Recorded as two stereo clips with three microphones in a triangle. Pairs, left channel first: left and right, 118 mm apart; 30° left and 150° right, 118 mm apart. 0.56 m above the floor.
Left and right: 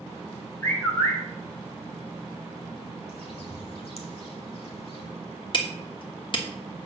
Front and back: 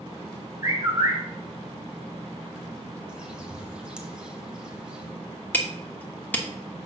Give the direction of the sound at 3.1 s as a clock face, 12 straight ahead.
8 o'clock.